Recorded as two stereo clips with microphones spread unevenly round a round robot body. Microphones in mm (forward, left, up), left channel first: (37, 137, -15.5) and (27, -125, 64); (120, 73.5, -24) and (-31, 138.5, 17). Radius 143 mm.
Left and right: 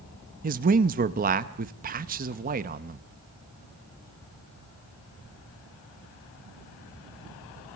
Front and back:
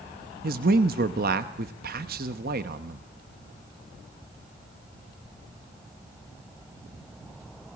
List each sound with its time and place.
0.4 s a man speaking: 160° right, 0.9 m